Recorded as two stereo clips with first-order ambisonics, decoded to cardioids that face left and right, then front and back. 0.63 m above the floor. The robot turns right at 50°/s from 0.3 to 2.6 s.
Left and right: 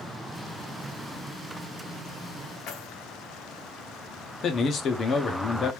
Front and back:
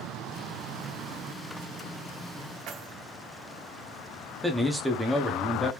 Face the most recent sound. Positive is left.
turn(degrees=95)